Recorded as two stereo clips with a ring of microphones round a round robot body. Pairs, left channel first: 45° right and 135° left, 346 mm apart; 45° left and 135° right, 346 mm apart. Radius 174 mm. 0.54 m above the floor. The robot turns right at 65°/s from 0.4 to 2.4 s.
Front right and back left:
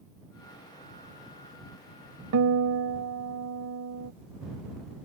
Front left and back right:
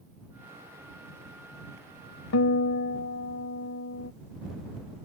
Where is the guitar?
90° left; by 4.1 s 95° left.